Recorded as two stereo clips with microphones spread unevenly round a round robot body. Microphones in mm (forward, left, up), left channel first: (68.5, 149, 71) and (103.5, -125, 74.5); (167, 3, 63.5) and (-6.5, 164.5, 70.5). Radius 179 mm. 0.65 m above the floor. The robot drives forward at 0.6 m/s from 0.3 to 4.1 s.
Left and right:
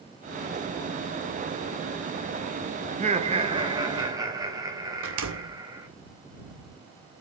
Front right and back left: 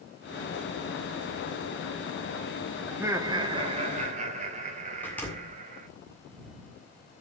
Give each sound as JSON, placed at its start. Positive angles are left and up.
{"t": 2.9, "sound": "laughter", "azimuth_deg": -140, "distance_m": 0.9}
{"t": 5.0, "sound": "a door slam", "azimuth_deg": -125, "distance_m": 1.6}